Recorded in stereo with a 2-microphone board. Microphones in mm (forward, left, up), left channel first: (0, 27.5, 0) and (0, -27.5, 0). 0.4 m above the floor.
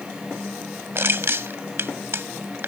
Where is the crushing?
50° right (ahead or behind).